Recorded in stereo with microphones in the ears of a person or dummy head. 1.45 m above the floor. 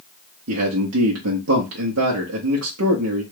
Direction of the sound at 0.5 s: 75° right (ahead or behind).